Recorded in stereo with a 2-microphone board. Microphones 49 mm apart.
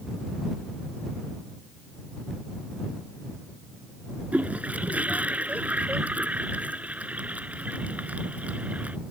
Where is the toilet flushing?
30° right (ahead or behind).